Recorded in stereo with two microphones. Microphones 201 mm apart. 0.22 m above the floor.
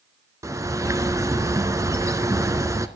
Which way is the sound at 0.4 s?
15° right (ahead or behind).